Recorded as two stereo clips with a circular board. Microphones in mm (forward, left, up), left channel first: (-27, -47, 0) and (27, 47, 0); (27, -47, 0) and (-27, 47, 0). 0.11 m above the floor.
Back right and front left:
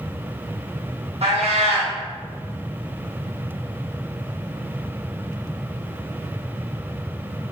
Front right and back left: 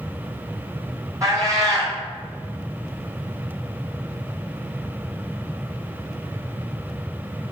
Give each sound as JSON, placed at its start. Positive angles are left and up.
{"t": 1.2, "sound": "a cat meowing", "azimuth_deg": 60, "distance_m": 1.2}